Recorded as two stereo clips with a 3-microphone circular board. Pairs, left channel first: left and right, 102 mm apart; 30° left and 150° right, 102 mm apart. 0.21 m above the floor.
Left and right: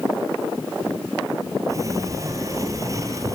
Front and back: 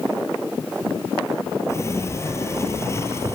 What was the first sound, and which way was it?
A sliding door, 35° right.